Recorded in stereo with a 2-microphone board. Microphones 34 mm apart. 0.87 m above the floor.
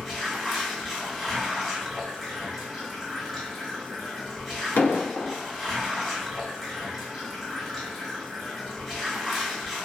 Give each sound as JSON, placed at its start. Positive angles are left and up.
{"t": 0.0, "sound": "running water", "side_deg": 5, "distance_m": 1.2}
{"t": 4.8, "sound": "an explosion", "side_deg": 80, "distance_m": 0.6}